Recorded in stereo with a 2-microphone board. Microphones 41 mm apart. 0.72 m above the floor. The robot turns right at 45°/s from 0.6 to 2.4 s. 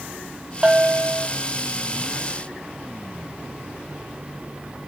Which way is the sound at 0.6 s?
20° right (ahead or behind).